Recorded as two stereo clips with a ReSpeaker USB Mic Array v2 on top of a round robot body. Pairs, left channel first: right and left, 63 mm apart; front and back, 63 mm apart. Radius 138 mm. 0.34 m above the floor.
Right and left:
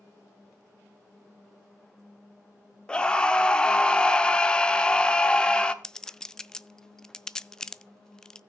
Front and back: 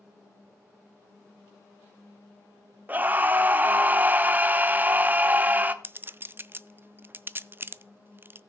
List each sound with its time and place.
2.9 s a scream: 150° right, 1.2 m
5.8 s a clink: 165° right, 0.6 m